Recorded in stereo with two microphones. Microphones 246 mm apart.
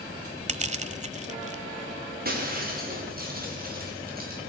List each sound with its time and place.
0.5 s crushing: 30° right (ahead or behind), 1.2 m
2.2 s breaking glass: 35° right (ahead or behind), 7 m